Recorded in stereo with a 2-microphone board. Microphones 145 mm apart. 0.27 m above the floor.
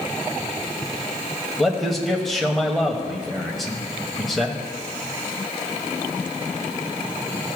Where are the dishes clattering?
I don't hear dishes clattering.